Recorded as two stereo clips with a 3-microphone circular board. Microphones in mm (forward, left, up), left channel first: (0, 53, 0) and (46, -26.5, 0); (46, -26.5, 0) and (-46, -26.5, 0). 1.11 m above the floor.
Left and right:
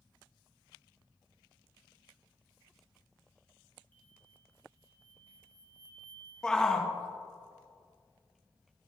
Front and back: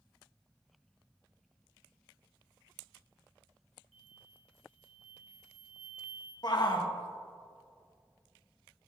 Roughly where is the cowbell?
I don't hear a cowbell.